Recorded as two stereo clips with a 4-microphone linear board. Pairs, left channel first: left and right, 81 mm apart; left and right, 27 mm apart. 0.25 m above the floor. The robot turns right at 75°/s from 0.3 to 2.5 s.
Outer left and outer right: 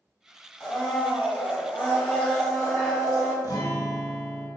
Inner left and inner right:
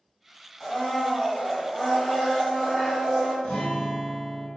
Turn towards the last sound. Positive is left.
turn(degrees=50)  # may be behind; listen again after turning